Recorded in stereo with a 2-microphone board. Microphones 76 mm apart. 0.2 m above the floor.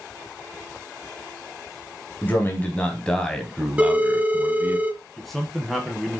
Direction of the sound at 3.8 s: 15° right (ahead or behind).